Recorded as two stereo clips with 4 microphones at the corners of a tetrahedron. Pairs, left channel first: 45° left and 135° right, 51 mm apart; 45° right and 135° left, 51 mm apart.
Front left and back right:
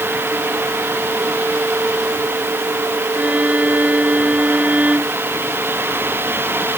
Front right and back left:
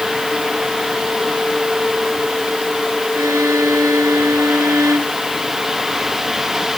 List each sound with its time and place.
3.1 s a violin: 160° left